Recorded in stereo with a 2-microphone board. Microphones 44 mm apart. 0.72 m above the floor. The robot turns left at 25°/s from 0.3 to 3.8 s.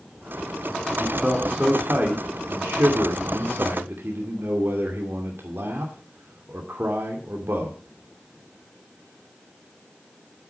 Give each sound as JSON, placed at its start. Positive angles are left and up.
{"t": 1.0, "sound": "a man speaking", "azimuth_deg": -30, "distance_m": 2.5}